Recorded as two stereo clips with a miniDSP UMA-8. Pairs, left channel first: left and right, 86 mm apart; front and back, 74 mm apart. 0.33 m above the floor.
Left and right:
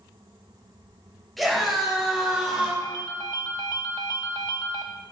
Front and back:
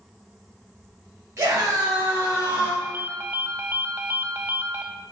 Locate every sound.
1.4 s a scream: straight behind, 1.8 m; by 2.7 s 145° right, 1.5 m
2.8 s a ringtone: 125° left, 0.6 m